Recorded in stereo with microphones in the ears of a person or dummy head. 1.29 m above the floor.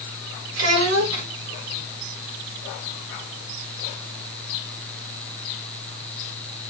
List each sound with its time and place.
0.6 s a child speaking: 80° right, 1.6 m